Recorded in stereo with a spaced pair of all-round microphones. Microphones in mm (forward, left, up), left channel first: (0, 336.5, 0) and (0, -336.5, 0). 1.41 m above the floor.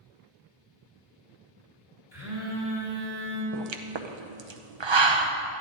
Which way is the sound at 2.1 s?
55° left (ahead or behind).